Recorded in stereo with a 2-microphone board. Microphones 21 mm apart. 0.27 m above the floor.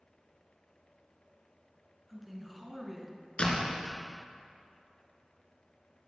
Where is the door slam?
55° left (ahead or behind), 3 m.